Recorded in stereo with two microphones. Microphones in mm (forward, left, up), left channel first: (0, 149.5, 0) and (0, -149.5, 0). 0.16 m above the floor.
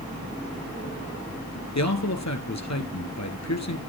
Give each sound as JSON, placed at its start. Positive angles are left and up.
{"t": 1.8, "sound": "a man speaking", "side_deg": 65, "distance_m": 2.0}